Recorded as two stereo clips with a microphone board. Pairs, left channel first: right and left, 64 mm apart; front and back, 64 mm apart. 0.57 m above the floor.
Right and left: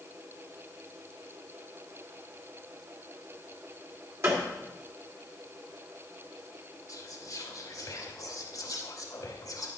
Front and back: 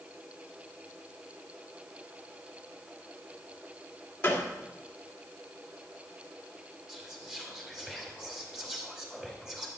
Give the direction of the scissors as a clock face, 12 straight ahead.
No scissors in this recording.